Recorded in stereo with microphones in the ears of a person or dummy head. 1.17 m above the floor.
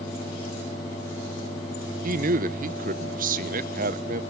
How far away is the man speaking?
About 1.0 m.